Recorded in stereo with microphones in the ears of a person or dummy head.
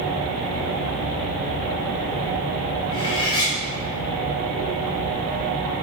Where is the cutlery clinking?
25° left (ahead or behind), 1.2 m.